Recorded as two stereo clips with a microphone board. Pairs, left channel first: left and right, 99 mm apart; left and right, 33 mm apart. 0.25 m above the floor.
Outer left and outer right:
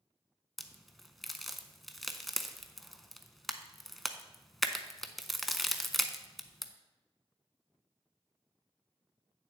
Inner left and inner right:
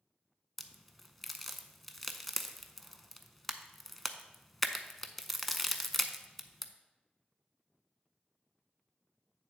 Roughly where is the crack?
Centre.